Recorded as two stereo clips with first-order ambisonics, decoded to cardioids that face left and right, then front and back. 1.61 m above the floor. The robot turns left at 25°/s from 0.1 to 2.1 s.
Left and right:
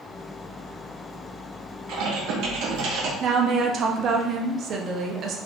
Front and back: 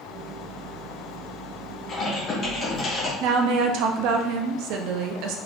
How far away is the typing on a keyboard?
About 1.5 m.